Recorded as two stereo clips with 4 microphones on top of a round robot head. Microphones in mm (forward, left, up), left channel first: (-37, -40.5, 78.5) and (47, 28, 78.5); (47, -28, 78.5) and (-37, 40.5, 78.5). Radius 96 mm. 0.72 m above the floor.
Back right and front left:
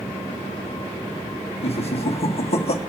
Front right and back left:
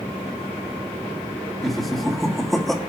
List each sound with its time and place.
1.6 s laughter: 130° right, 1.5 m